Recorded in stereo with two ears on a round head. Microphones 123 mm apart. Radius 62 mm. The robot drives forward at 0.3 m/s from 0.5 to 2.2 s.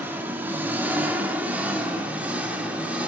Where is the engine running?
15° right (ahead or behind), 1.7 m; by 3.1 s 10° right (ahead or behind), 2 m.